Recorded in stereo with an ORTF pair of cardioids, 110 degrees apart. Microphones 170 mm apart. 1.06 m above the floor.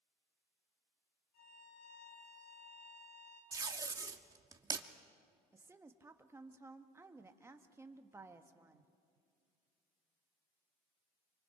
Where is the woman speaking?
15° right, 1.3 m.